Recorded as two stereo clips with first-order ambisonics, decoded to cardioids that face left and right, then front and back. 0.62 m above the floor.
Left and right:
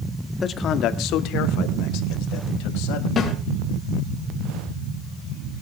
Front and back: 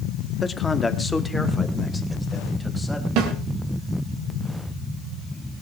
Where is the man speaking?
55° left, 1.0 m; by 3.1 s 90° left, 4.5 m.